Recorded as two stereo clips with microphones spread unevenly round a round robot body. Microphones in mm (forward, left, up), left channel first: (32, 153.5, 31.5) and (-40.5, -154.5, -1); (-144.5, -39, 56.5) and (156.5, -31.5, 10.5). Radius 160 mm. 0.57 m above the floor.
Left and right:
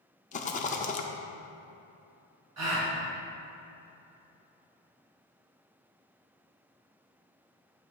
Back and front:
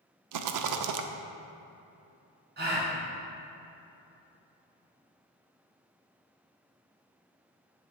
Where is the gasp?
60° right, 2 m.